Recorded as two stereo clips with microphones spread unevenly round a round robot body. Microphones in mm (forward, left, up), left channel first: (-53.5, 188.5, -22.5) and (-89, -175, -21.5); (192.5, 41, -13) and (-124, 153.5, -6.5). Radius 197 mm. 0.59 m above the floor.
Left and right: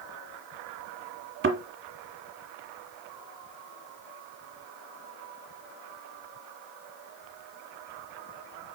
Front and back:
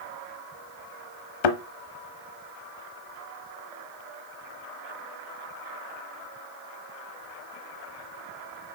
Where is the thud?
30° right, 0.9 m.